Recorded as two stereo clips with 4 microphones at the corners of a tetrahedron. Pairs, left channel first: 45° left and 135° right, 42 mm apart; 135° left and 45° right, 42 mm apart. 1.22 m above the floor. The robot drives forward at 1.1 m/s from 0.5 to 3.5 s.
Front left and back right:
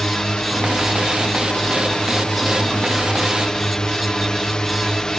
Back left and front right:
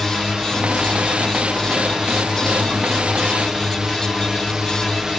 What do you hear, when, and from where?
0.0 s a drone: 5° left